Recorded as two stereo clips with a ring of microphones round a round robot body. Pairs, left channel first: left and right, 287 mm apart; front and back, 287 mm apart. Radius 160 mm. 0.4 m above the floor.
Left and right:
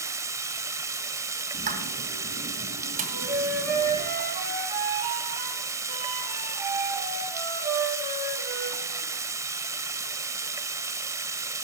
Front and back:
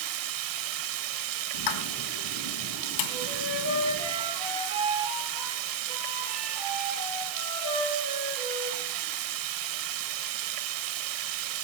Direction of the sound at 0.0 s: 170° right.